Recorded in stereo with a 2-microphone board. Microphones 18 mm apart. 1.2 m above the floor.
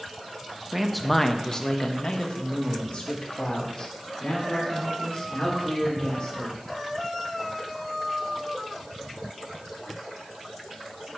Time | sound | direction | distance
0.7 | a man speaking | 10° right (ahead or behind) | 0.6 m